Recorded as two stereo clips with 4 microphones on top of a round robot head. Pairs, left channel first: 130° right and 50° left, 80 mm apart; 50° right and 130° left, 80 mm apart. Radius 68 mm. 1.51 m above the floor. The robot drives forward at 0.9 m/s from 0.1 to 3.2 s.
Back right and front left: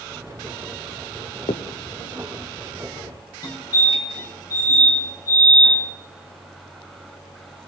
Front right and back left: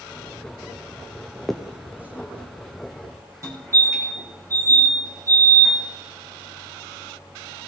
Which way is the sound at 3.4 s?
170° right.